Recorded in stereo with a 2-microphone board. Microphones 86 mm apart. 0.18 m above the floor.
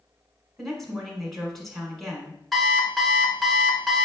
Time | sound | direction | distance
0.6 | a woman speaking | 5° left (ahead or behind) | 1.5 m
2.5 | an alarm clock | centre (ahead or behind) | 0.8 m